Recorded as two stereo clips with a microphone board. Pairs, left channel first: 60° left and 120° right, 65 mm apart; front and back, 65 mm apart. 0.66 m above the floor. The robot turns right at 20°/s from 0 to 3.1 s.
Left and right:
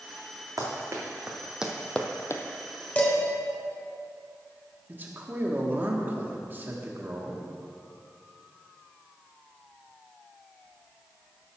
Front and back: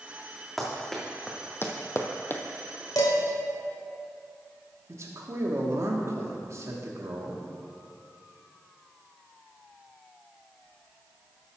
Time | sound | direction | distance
0.6 | running footsteps | 90° right | 2.5 m
3.0 | dishes clattering | 5° right | 1.7 m
4.9 | a man speaking | 170° right | 1.2 m